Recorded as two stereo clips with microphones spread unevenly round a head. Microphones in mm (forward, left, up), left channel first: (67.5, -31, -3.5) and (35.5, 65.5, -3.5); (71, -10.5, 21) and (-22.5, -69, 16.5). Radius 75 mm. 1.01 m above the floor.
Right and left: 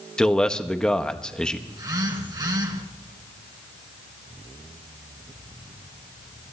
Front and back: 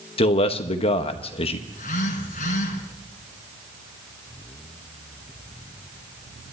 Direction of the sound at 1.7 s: 65° left.